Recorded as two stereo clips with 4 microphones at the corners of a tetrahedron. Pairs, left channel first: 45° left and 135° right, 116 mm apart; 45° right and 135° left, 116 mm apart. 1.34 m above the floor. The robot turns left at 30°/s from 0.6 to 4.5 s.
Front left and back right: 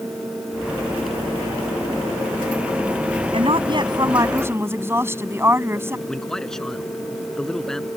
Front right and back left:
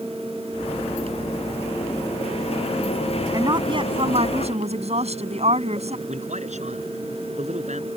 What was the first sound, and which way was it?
A woman speaking, 170° right.